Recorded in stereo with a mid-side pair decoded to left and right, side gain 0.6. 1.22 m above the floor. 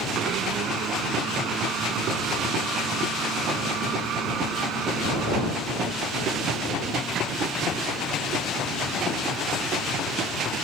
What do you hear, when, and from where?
0.1 s a blender: 60° right